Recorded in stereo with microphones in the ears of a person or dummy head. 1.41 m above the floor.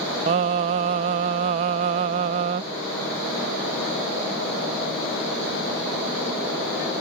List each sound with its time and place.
0.3 s singing: 30° right (ahead or behind)